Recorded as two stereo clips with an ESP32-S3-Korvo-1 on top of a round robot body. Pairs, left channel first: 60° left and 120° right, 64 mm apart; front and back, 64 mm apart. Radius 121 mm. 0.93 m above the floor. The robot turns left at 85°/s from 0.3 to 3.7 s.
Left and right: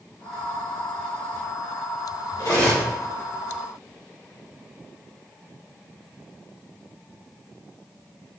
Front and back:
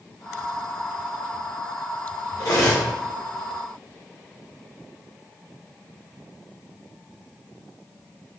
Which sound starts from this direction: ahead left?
Cutlery clinking, at 2.4 s.